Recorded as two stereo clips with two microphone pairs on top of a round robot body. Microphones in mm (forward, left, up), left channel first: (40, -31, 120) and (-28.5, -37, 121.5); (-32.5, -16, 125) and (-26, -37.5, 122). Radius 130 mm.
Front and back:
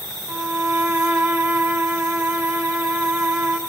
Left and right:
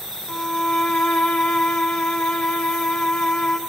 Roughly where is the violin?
Behind left.